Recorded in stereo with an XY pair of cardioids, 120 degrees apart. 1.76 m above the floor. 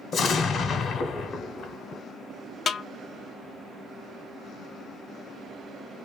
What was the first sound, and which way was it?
An explosion, 50° left.